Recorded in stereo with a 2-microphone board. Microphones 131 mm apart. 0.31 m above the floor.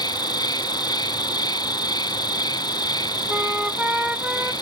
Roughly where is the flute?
Centre.